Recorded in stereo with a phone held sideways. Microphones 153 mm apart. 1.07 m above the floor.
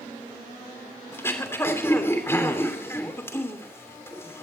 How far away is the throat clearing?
About 3 m.